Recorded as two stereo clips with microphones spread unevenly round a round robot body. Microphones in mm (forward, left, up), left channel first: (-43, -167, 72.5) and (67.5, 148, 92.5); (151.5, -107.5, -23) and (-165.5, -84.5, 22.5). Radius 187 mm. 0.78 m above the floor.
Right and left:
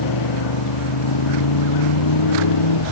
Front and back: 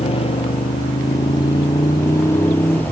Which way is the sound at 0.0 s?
75° right.